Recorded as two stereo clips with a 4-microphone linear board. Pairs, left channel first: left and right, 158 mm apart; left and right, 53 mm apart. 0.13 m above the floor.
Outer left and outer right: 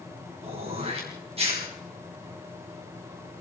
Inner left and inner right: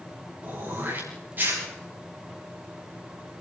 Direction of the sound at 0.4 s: 40° right (ahead or behind).